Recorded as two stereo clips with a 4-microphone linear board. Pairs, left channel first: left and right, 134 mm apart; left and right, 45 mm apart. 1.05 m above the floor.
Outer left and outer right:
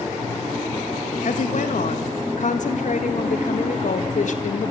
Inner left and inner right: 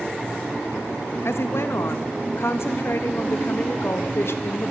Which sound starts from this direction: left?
A woman speaking, at 1.2 s.